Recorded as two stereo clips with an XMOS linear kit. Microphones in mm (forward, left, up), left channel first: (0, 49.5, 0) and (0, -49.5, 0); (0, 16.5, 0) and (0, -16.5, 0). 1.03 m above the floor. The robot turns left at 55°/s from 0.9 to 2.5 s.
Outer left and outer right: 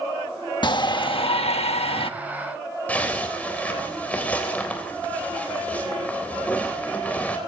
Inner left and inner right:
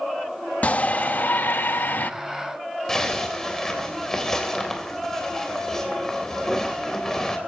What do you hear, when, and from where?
0.6 s a shout: 130° left, 1.2 m; by 2.1 s 65° left, 1.2 m
2.9 s a zipper: 15° left (ahead or behind), 3.5 m